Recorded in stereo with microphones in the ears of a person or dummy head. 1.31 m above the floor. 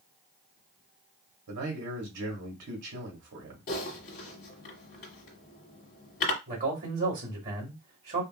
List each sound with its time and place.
1.5 s a man speaking: 60° right (ahead or behind), 2 m
3.7 s typing on a keyboard: 45° left (ahead or behind), 1.7 m
6.5 s a man speaking: 40° right (ahead or behind), 2 m